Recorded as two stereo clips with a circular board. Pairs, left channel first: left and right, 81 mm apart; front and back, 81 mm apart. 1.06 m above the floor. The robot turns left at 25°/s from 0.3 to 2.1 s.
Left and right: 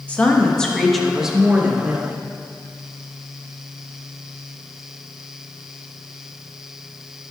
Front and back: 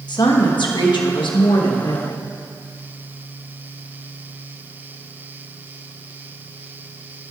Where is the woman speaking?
15° left, 1.2 m; by 2.3 s 30° right, 1.2 m.